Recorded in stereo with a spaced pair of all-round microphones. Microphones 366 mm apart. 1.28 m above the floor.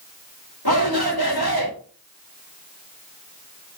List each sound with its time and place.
0.7 s a shout: 80° left, 5 m